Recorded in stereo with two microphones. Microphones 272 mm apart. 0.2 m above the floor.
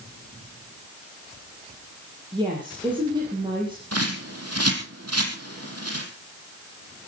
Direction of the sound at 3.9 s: 70° right (ahead or behind).